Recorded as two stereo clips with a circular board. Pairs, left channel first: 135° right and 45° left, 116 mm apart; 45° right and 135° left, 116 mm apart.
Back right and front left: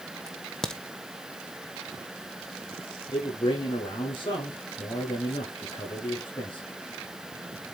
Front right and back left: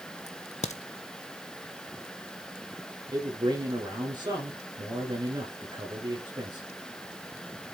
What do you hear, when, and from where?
0.3 s a crack: 50° right, 1.1 m
3.1 s a man speaking: 175° right, 5.5 m